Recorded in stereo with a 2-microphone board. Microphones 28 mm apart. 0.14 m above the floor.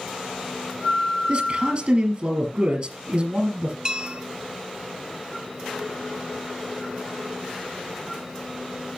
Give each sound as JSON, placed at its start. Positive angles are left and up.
{"t": 1.3, "sound": "a man speaking", "side_deg": -40, "distance_m": 3.5}
{"t": 3.9, "sound": "a bell", "side_deg": -30, "distance_m": 0.7}